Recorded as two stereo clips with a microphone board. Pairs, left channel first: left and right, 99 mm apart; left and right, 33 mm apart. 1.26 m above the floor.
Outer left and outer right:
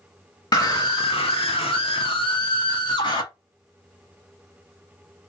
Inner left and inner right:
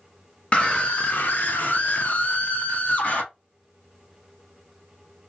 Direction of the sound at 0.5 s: 45° left (ahead or behind).